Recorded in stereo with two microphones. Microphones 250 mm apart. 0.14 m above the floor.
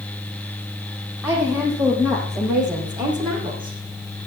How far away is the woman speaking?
About 6.5 m.